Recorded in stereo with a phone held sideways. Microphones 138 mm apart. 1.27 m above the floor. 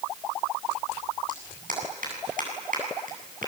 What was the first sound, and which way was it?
A clap, 80° right.